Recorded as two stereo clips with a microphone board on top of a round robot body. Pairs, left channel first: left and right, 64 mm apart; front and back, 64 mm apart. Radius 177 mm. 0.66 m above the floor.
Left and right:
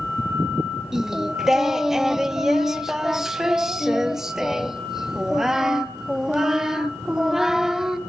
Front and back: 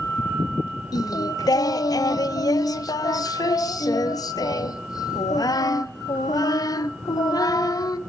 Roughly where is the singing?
Ahead.